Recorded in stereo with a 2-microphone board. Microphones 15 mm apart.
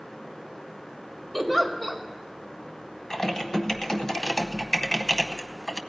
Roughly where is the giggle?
Centre.